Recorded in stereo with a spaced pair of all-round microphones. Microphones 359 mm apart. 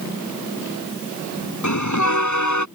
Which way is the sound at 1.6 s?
55° left (ahead or behind).